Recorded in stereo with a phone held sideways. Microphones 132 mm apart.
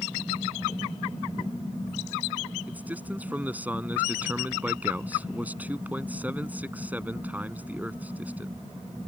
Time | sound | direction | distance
2.7 | a man speaking | 10° right (ahead or behind) | ?